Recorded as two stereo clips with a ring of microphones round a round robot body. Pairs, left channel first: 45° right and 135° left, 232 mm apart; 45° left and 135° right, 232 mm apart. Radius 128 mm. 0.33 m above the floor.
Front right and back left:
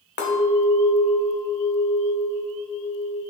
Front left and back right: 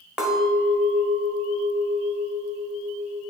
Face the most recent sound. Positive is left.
turn(degrees=-50)